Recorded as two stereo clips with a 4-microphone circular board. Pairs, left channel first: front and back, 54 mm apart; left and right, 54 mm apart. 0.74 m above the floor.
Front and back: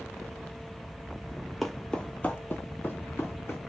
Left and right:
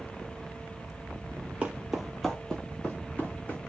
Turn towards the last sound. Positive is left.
turn(degrees=40)